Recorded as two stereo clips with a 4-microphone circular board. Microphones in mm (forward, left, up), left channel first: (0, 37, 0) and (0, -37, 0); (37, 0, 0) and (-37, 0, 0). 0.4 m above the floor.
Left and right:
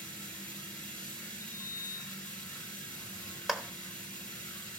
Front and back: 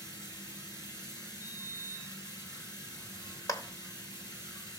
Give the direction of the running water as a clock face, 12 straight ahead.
11 o'clock.